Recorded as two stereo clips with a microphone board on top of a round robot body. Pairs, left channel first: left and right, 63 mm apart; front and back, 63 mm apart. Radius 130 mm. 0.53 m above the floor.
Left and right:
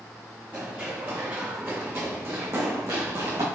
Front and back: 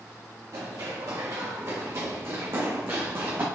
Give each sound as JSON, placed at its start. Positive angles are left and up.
{"t": 0.5, "sound": "running footsteps", "azimuth_deg": -150, "distance_m": 3.5}